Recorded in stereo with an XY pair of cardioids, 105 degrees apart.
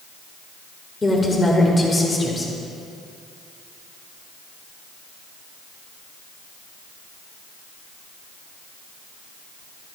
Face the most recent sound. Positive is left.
turn(degrees=25)